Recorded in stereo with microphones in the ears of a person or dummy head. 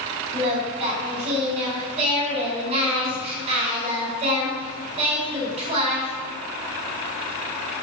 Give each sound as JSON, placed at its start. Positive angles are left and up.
{"t": 0.3, "sound": "singing", "side_deg": -35, "distance_m": 4.5}